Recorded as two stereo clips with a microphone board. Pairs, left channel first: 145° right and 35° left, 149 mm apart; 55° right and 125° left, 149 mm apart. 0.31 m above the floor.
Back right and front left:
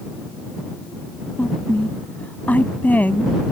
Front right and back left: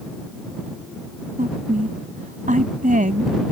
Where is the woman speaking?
135° left.